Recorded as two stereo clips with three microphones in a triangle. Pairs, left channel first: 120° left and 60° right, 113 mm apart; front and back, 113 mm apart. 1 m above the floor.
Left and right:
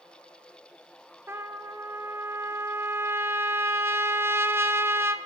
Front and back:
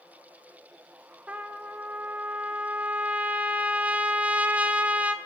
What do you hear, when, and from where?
1.3 s a trumpet: 110° right, 0.6 m